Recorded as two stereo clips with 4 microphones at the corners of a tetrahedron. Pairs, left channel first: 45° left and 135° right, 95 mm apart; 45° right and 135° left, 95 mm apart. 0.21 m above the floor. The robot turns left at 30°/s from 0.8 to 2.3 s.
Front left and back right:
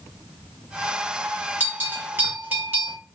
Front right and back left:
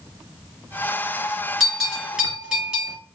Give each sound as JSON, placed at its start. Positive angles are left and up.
{"t": 1.6, "sound": "a bell", "azimuth_deg": -145, "distance_m": 1.2}